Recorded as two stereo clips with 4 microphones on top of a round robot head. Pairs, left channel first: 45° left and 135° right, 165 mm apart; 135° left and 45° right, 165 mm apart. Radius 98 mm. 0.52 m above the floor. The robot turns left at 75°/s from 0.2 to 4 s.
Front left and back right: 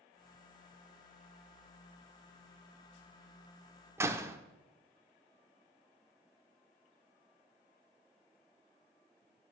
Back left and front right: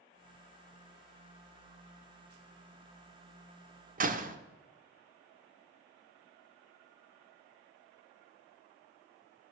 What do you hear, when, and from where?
4.0 s a door slam: 60° right, 1.3 m